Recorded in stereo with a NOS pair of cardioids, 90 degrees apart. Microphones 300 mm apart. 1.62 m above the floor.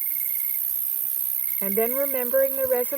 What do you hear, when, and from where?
0.0 s an insect: 70° right
1.6 s a woman speaking: 5° right